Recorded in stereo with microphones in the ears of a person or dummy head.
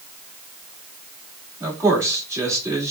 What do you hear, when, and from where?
1.6 s a man speaking: 15° right (ahead or behind), 2 m